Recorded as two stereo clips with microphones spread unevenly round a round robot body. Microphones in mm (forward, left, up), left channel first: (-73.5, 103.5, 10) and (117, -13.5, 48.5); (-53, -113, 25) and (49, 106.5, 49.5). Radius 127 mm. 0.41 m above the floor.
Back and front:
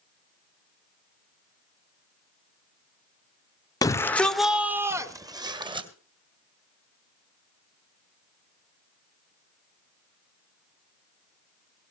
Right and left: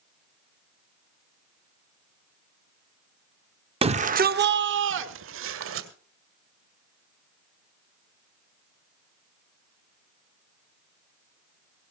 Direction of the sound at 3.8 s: 120° left.